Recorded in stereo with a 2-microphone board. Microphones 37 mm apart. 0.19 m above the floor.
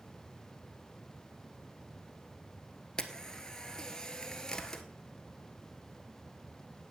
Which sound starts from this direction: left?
A camera shutter, at 3.0 s.